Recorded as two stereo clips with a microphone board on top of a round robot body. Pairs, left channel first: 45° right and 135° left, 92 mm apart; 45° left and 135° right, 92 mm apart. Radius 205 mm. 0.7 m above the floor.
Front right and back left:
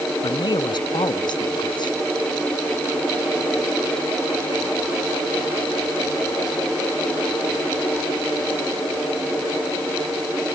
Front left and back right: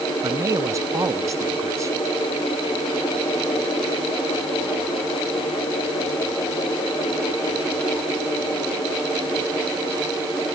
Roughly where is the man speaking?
Right.